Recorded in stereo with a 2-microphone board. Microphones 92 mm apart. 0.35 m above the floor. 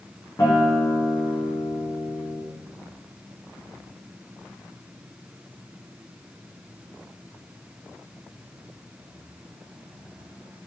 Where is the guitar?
30° left (ahead or behind), 5.5 m.